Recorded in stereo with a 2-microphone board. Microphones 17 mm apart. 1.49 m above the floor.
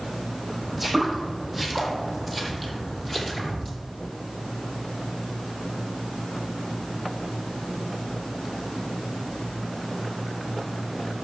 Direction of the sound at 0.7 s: 5° left (ahead or behind).